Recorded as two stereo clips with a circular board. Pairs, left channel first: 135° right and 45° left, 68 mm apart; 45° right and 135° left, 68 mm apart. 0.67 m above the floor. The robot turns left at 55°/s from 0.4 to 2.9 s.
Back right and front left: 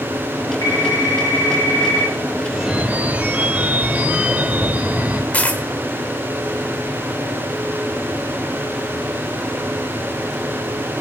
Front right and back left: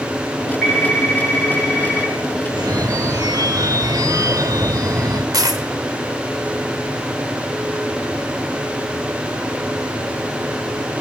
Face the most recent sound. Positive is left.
turn(degrees=155)